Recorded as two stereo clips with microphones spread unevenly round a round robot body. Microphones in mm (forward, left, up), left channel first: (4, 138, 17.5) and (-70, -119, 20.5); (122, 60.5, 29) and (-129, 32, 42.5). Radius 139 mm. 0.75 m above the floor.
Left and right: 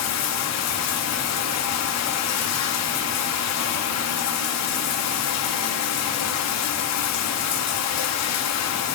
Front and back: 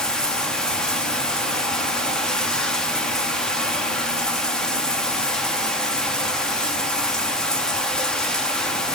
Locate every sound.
0.0 s running water: 90° left, 0.9 m